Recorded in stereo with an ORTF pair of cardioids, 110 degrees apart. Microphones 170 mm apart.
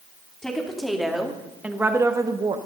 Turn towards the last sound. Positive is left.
turn(degrees=-30)